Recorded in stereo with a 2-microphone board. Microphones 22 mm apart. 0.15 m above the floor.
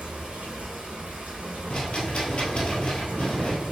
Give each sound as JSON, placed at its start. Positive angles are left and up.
{"t": 0.0, "sound": "running water", "side_deg": -70, "distance_m": 1.2}
{"t": 1.7, "sound": "a rattle", "side_deg": 50, "distance_m": 1.0}